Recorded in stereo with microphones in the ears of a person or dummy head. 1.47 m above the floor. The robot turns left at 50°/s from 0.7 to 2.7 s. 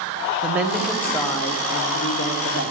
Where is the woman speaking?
Straight behind, 0.8 m; by 2.7 s 80° left, 0.8 m.